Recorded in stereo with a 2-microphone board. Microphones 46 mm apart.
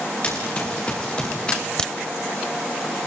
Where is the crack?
15° left (ahead or behind), 0.8 m.